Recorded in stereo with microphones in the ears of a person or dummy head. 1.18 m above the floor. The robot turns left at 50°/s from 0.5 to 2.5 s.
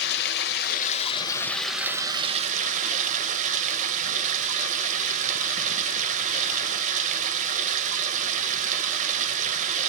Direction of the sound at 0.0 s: 60° left.